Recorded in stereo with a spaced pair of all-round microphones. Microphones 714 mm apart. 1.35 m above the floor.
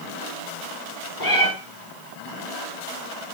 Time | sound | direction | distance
1.2 | a cat meowing | 75° left (ahead or behind) | 5 m